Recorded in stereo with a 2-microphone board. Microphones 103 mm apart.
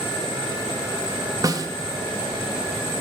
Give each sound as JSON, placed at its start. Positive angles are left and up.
{"t": 1.4, "sound": "a snare drum", "side_deg": -35, "distance_m": 0.6}